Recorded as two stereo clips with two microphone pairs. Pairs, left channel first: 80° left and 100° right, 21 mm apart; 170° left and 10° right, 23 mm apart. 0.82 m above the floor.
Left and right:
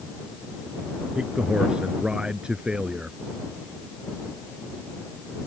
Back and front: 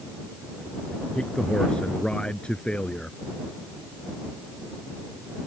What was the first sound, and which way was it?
A man speaking, 145° right.